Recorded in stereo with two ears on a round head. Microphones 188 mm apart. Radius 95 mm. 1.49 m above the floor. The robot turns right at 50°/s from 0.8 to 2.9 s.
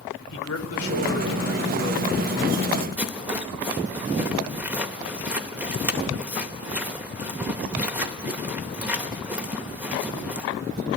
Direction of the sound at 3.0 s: 5° right (ahead or behind).